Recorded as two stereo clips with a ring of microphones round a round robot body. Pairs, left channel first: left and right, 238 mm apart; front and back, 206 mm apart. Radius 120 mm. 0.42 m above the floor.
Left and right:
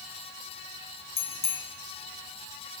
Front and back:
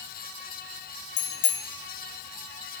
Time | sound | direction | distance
1.2 | a bicycle bell | 25° left | 2.5 m